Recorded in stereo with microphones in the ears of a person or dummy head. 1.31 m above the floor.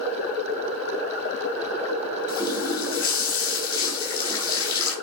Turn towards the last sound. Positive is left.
turn(degrees=30)  # may be behind; listen again after turning